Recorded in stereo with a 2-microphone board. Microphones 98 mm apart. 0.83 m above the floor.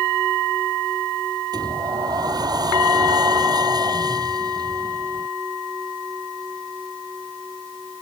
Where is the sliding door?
45° right (ahead or behind).